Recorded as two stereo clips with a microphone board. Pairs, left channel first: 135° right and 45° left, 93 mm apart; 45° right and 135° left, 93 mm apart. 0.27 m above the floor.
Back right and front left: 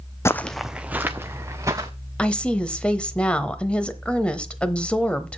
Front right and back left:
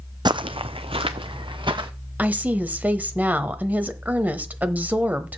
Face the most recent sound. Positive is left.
turn(degrees=170)